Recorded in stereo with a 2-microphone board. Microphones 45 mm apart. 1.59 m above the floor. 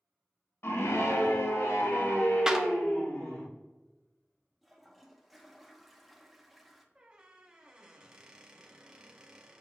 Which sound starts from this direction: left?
A scream, at 0.6 s.